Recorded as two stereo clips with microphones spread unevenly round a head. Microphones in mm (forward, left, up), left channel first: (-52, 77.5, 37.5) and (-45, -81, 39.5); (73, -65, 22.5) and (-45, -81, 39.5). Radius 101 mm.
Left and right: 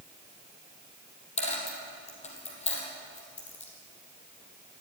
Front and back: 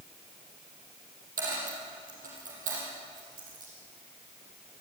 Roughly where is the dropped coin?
Behind left.